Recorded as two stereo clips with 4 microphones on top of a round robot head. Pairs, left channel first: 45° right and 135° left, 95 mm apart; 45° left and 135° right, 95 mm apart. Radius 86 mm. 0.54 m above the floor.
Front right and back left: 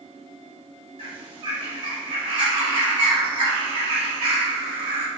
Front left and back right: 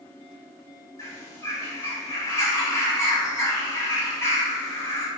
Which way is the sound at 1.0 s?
105° left.